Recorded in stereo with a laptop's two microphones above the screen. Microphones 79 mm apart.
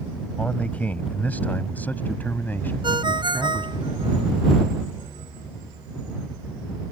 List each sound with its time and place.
0.4 s a man speaking: 15° left (ahead or behind); by 3.8 s 25° left (ahead or behind)
2.8 s a ringtone: 70° right (ahead or behind)